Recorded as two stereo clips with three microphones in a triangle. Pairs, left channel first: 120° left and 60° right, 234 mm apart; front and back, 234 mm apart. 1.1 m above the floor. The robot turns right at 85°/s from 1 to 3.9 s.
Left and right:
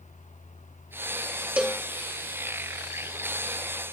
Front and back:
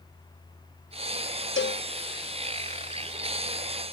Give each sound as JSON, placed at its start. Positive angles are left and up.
{"t": 1.6, "sound": "a cowbell", "azimuth_deg": 25}